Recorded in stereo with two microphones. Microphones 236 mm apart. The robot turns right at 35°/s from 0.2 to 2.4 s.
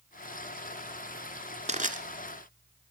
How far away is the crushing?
About 1.6 m.